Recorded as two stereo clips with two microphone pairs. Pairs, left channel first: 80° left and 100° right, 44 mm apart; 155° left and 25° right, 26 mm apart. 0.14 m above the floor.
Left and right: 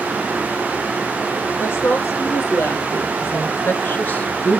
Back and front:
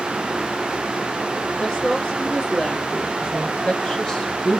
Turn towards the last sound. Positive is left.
turn(degrees=110)